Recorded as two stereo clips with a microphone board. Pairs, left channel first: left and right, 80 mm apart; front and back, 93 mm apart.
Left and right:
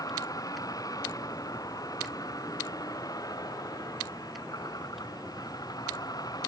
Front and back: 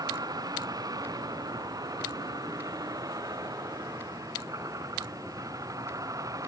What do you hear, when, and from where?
0.0 s a vehicle: 130° left; by 6.5 s 125° left